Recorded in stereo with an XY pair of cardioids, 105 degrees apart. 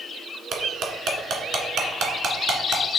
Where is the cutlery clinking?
65° right, 1.8 m.